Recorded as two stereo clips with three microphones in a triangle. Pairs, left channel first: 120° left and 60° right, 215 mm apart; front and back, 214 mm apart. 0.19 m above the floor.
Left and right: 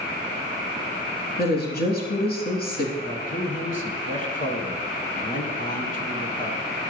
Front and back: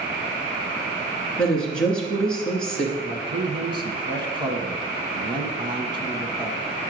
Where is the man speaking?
130° left, 1.6 m.